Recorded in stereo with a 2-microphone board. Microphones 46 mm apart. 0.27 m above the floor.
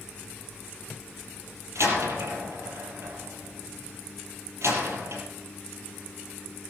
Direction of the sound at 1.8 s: 75° right (ahead or behind).